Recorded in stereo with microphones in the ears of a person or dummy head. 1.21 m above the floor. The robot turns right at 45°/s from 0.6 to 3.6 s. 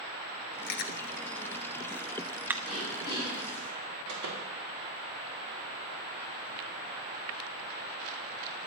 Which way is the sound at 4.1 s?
65° right (ahead or behind).